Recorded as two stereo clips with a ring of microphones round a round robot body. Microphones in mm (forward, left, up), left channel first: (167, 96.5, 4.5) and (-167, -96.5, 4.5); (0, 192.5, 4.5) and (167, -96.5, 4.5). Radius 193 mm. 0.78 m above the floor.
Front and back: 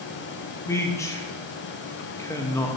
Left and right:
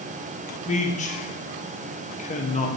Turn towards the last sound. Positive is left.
turn(degrees=100)